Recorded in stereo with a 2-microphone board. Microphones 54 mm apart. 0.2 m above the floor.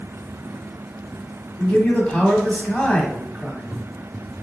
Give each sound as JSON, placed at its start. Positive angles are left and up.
{"t": 1.6, "sound": "a man speaking", "side_deg": 20, "distance_m": 1.0}